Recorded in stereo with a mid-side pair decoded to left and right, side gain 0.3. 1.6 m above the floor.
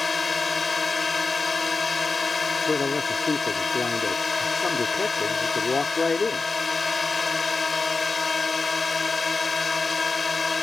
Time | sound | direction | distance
0.0 | a drone | 35° left | ?
2.7 | a man speaking | 40° left | ?